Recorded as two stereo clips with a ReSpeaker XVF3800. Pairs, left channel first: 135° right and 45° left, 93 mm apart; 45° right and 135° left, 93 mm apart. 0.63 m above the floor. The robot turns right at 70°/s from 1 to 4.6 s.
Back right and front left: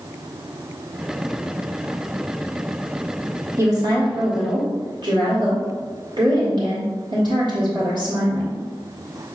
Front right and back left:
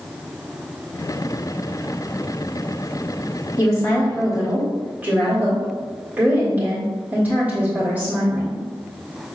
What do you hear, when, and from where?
3.6 s a woman speaking: 5° right, 1.6 m; by 8.6 s 65° left, 1.6 m